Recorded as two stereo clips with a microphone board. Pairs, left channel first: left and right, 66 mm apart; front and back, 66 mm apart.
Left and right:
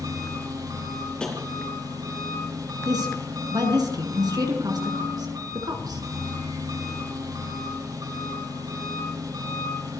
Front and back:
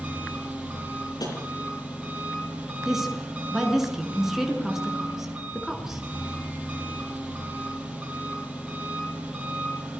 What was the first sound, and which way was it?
An engine running, 110° right.